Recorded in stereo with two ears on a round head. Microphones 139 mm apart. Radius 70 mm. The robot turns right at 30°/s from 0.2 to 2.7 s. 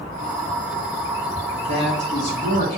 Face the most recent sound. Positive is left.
turn(degrees=65)